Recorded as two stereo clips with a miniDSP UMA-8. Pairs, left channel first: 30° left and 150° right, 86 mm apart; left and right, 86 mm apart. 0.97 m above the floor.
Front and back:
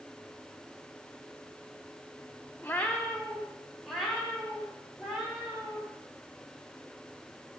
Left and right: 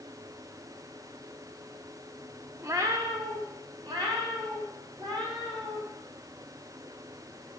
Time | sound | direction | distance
2.6 | a cat meowing | 35° right | 0.9 m